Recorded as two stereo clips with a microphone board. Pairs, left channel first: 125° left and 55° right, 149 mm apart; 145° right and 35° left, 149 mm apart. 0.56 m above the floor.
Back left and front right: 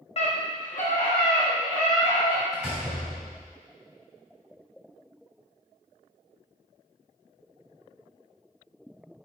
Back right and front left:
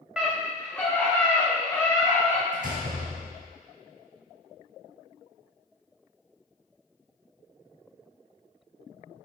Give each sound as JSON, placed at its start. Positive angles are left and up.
{"t": 0.2, "sound": "a scream", "azimuth_deg": 115, "distance_m": 1.2}
{"t": 2.5, "sound": "a door slam", "azimuth_deg": 30, "distance_m": 3.0}